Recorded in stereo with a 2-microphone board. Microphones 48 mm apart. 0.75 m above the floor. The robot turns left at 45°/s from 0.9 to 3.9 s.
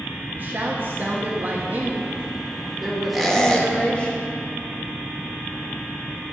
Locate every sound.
0.3 s a woman speaking: 75° right, 0.8 m; by 4.1 s 150° left, 0.8 m
3.1 s a squeak: centre (ahead or behind), 0.8 m; by 3.7 s 25° left (ahead or behind), 0.8 m